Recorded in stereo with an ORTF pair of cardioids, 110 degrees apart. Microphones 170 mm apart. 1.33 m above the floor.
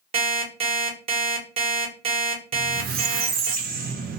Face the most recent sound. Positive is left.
turn(degrees=-65)